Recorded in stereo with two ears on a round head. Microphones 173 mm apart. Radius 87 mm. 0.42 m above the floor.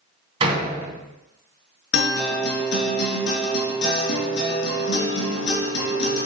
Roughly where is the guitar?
Left.